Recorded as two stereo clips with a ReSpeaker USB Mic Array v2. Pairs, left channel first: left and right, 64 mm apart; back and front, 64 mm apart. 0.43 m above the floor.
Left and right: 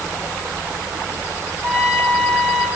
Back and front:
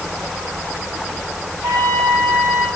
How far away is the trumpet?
About 4.5 m.